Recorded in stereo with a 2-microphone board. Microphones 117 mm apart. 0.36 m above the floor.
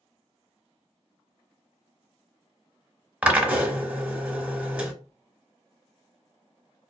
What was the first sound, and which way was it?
A drill, 10° right (ahead or behind).